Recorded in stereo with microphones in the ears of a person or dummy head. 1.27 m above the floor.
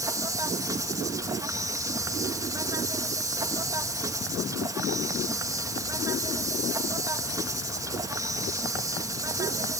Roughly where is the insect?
Centre.